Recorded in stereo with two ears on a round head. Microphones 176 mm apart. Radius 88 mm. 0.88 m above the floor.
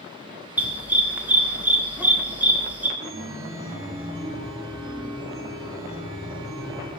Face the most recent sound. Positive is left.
turn(degrees=-20)  # may be behind; listen again after turning